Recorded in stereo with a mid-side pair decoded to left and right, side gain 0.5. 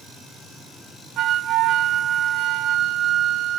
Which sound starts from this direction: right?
A flute, at 1.2 s.